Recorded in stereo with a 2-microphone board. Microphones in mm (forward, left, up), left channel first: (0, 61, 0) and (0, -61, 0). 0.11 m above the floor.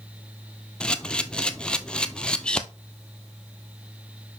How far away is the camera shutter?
About 0.7 m.